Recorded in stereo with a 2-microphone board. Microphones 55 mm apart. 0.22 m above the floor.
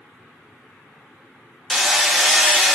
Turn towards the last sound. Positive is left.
turn(degrees=0)  # may be behind; listen again after turning